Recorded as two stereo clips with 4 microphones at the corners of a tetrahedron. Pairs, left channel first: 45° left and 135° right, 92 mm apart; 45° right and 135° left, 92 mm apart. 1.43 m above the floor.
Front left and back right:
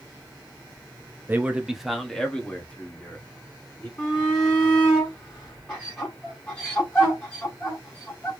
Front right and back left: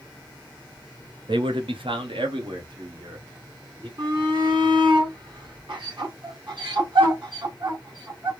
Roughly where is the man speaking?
Behind.